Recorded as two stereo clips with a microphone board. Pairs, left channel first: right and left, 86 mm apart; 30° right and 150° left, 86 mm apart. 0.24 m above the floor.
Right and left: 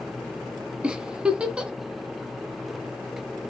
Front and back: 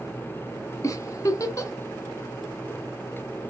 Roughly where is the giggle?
Ahead.